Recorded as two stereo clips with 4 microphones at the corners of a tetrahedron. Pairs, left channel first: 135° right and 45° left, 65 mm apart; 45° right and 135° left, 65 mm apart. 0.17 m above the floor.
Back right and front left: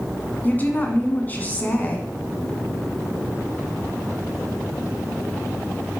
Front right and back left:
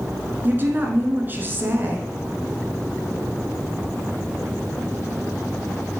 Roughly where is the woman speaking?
Behind.